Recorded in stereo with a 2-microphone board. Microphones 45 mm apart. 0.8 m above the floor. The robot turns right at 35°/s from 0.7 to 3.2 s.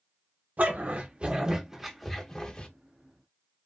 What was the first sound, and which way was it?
A dog barking, 40° right (ahead or behind).